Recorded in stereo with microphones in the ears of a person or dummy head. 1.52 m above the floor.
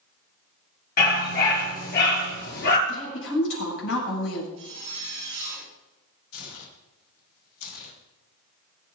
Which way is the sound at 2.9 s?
80° left.